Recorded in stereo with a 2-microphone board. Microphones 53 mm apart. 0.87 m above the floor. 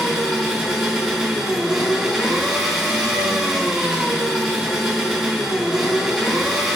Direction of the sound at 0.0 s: 10° right (ahead or behind).